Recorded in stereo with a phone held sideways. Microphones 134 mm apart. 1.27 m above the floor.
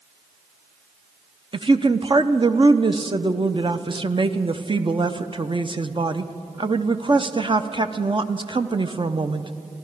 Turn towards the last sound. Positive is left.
turn(degrees=-40)  # may be behind; listen again after turning